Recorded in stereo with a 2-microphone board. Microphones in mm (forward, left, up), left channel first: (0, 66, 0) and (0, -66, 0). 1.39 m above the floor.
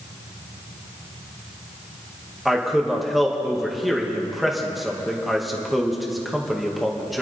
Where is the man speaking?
Centre (ahead or behind), 2 m.